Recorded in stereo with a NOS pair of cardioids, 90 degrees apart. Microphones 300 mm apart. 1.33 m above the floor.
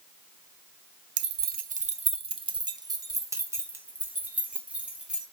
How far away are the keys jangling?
About 0.8 m.